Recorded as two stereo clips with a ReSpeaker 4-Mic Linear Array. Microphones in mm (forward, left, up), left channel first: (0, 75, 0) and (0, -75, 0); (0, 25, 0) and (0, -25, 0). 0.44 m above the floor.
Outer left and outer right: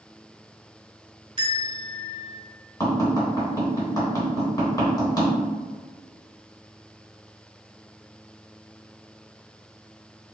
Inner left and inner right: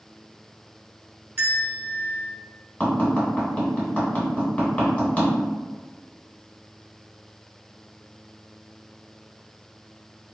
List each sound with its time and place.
1.4 s a bell: 35° right (ahead or behind), 1.0 m
2.8 s tapping: 25° left (ahead or behind), 1.2 m